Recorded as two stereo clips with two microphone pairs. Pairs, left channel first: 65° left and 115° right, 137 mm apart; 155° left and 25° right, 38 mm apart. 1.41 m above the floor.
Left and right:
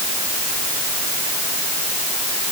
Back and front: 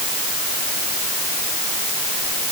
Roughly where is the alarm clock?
I don't hear an alarm clock.